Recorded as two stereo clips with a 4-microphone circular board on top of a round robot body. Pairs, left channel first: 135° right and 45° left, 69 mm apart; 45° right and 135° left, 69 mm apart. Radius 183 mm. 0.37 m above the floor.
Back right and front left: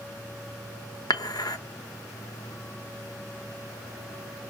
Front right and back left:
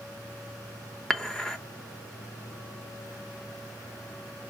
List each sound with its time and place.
1.1 s dishes clattering: 125° right, 1.1 m